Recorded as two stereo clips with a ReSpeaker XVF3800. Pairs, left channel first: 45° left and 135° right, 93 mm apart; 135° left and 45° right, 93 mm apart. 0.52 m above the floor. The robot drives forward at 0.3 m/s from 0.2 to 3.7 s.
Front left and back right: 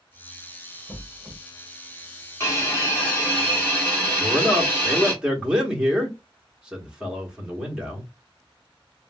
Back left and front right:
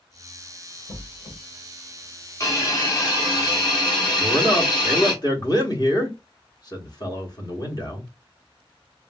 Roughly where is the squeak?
Behind left.